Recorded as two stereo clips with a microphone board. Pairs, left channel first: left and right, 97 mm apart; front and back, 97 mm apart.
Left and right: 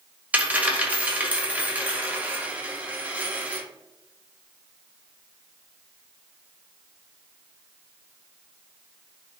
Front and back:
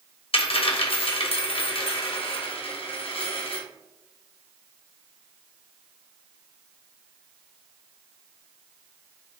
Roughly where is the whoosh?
No whoosh in this recording.